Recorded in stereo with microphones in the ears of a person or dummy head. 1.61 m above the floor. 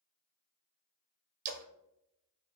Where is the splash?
45° right (ahead or behind), 0.6 m.